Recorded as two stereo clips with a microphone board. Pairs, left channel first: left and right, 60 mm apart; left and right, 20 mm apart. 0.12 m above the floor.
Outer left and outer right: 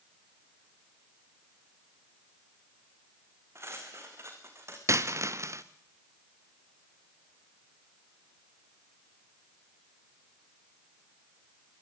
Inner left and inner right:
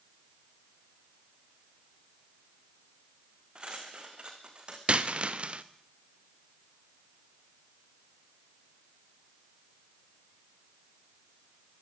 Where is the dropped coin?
55° right (ahead or behind), 1.6 m.